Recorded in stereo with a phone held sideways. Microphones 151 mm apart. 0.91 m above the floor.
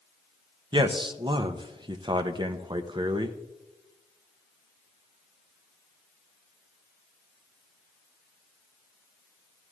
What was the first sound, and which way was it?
A man speaking, 30° right (ahead or behind).